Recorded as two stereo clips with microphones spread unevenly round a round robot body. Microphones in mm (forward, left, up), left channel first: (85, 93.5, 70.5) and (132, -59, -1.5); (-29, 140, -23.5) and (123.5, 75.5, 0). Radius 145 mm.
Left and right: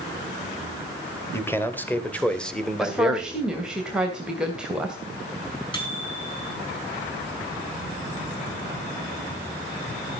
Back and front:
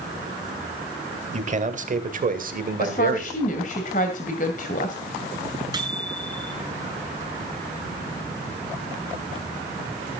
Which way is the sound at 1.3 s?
20° left.